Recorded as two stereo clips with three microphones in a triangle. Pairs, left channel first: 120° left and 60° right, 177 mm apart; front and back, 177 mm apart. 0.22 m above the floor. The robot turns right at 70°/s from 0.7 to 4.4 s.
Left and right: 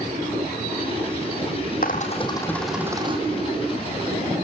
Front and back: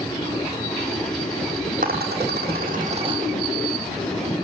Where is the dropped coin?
150° left, 2.5 m; by 3.2 s 115° right, 2.5 m.